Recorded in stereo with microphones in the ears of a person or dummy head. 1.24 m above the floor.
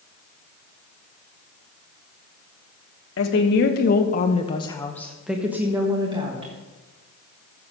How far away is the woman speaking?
About 1.3 m.